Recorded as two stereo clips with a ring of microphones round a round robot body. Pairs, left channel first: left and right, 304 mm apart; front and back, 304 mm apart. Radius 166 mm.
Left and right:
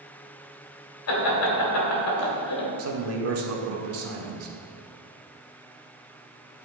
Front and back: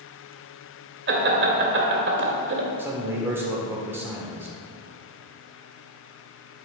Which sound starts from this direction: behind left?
Laughter, at 1.1 s.